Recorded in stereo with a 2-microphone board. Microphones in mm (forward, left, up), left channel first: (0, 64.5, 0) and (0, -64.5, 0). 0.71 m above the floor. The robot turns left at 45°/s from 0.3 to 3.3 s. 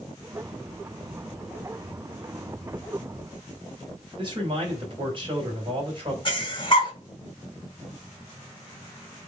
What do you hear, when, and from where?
4.2 s a man speaking: 40° right (ahead or behind), 3.5 m
6.2 s breathing: 40° left (ahead or behind), 1.5 m